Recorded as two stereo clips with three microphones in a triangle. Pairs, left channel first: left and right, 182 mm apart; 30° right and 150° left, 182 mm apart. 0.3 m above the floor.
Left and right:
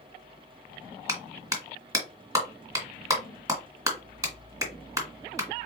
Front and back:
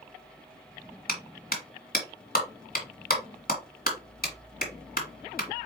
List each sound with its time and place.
1.1 s a clap: 25° right, 1.8 m